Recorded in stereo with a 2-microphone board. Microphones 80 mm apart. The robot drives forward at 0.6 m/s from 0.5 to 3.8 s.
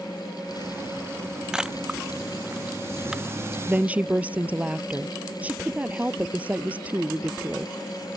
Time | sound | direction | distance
1.5 | a camera shutter | 10° right (ahead or behind) | ?
3.7 | a woman speaking | 20° right (ahead or behind) | ?